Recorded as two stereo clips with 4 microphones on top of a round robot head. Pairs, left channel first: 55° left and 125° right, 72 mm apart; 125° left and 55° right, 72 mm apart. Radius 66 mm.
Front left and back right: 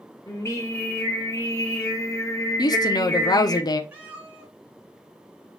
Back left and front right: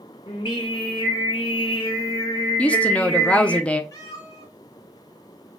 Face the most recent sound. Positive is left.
turn(degrees=170)